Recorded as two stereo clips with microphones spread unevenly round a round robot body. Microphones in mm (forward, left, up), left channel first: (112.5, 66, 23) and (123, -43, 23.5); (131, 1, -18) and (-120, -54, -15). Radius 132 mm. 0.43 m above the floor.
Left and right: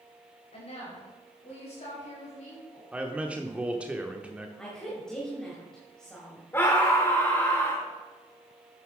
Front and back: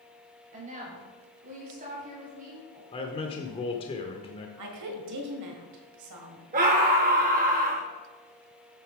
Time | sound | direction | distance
0.5 | a woman speaking | 130° left | 2.5 m
2.9 | a man speaking | 20° right | 0.8 m
4.6 | a woman speaking | straight behind | 1.7 m
6.5 | a scream | 155° left | 0.8 m